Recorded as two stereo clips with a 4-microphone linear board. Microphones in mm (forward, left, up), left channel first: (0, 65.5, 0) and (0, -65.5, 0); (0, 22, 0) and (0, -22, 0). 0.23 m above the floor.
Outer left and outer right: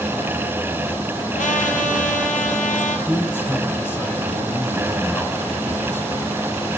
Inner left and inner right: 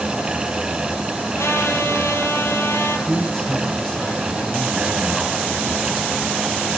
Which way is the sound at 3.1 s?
15° left (ahead or behind).